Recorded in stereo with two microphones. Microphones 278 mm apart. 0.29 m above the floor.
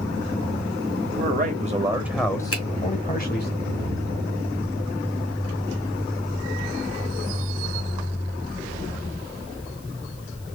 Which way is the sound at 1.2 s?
35° right (ahead or behind).